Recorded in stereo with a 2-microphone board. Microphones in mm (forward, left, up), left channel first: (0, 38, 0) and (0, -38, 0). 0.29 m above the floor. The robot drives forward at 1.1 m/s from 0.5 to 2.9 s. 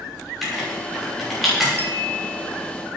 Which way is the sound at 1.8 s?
30° left (ahead or behind).